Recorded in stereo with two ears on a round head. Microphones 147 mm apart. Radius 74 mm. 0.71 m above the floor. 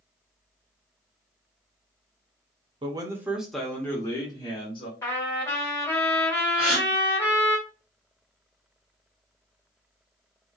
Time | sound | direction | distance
2.8 | a man speaking | 30° right (ahead or behind) | 0.6 m
5.0 | a trumpet | 15° left (ahead or behind) | 1.2 m
6.6 | a gasp | 5° right (ahead or behind) | 1.6 m